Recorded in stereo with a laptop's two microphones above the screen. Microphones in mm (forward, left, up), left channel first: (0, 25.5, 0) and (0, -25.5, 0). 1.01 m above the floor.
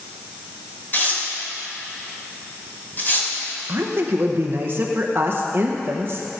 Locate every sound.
0.9 s tearing paper: 40° left (ahead or behind), 3 m
3.7 s a woman speaking: 40° right (ahead or behind), 0.7 m